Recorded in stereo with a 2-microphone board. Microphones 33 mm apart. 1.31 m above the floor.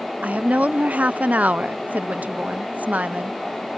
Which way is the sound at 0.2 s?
50° right (ahead or behind).